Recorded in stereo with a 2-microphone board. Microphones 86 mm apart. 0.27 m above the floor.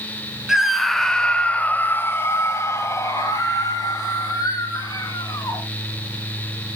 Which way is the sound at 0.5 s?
5° right (ahead or behind).